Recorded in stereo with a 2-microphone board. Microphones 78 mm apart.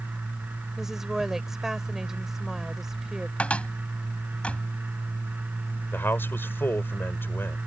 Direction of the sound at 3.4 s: 15° left (ahead or behind).